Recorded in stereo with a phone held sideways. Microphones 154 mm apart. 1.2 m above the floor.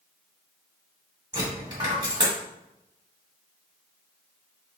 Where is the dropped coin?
30° right (ahead or behind), 1.2 m.